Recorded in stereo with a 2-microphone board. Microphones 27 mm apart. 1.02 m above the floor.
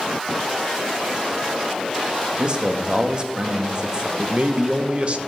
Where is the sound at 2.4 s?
30° right (ahead or behind), 1.3 m.